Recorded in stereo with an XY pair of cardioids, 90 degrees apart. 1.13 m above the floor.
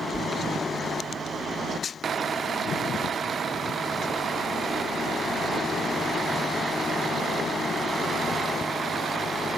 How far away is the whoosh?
About 3.5 m.